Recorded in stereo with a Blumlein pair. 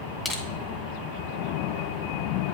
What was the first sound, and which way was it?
Crushing, 15° left.